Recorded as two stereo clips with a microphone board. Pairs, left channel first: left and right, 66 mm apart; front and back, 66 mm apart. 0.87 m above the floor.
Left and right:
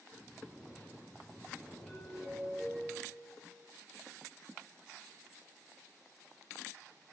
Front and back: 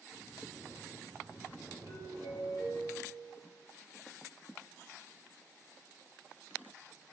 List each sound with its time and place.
0.1 s snoring: 170° left, 5 m
1.9 s a doorbell: 170° left, 8 m